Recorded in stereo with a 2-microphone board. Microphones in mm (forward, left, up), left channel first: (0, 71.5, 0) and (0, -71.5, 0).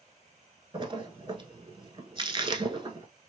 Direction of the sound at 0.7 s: 35° right (ahead or behind).